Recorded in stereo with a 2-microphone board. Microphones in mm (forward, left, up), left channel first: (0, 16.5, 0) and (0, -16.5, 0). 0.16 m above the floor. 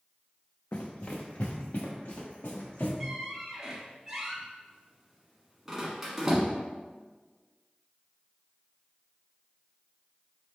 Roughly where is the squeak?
Centre.